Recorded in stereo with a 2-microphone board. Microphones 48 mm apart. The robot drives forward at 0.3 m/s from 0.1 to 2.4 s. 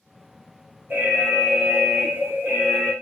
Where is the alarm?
45° right (ahead or behind), 2.5 m; by 2.9 s 40° right (ahead or behind), 3 m.